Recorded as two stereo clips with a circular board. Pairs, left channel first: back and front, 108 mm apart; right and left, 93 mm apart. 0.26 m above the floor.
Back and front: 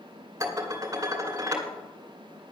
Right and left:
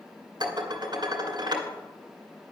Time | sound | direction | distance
0.4 | dishes clattering | 60° left | 2 m